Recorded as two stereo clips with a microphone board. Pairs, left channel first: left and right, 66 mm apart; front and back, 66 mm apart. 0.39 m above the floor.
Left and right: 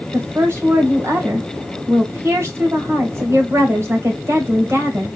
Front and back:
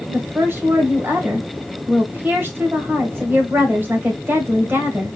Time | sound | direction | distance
0.1 | a woman speaking | 125° right | 1.8 m